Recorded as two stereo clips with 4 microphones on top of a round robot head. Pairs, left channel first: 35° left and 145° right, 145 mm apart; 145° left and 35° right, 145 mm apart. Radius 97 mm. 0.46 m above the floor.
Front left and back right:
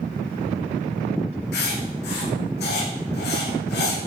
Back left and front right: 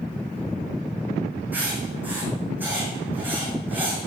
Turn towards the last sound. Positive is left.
turn(degrees=40)